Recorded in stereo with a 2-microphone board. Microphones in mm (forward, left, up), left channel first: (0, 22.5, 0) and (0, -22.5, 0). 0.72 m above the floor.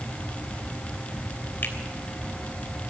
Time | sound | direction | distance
1.6 | a finger snap | 50° left (ahead or behind) | 3 m